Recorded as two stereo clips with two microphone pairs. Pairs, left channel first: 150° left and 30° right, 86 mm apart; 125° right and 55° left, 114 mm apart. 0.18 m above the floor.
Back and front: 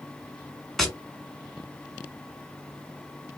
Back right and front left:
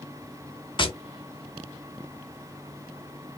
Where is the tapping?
125° right, 1.4 m.